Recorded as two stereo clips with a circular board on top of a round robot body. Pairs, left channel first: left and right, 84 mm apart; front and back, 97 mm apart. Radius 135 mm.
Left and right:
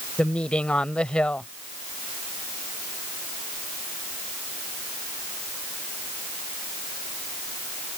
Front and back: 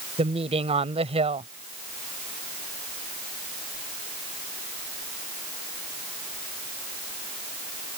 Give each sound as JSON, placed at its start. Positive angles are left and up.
{"t": 0.2, "sound": "a woman speaking", "azimuth_deg": 170}